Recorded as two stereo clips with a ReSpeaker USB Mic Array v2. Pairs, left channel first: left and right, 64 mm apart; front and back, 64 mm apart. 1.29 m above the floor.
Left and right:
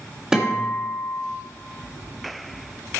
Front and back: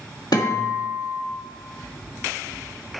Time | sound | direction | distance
0.3 | a guitar | 10° right | 1.9 m